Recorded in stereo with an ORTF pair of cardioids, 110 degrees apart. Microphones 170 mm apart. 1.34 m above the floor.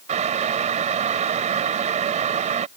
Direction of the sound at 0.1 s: 45° right.